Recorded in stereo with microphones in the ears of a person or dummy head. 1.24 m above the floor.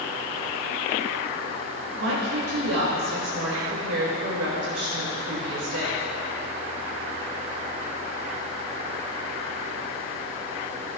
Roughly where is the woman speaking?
Right.